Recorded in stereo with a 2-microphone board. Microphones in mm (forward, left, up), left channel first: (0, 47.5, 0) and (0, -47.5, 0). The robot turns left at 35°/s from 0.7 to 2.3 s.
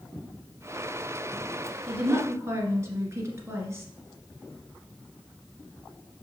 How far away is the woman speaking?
About 1.6 m.